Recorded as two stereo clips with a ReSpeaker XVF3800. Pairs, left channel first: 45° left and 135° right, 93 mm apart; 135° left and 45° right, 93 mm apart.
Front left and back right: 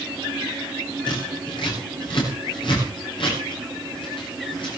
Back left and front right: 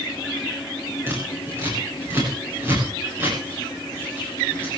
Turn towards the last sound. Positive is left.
turn(degrees=20)